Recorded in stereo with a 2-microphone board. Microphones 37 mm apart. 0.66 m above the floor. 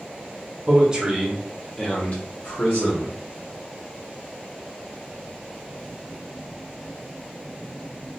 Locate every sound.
0.7 s a man speaking: 30° right (ahead or behind), 1.0 m; by 3.2 s 65° left (ahead or behind), 1.3 m